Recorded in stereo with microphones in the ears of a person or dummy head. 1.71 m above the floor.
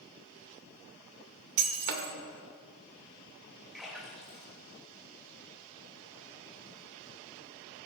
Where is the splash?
Centre (ahead or behind), 3.5 m.